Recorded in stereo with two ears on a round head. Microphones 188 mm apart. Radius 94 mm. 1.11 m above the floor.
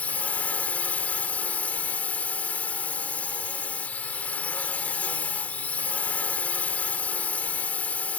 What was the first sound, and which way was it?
A drone, 5° left (ahead or behind).